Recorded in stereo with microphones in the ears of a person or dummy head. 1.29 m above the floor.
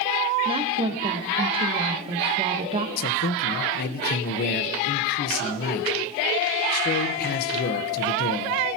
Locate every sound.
0.5 s a woman speaking: 30° right (ahead or behind), 1.2 m
3.0 s a man speaking: 55° left (ahead or behind), 1.0 m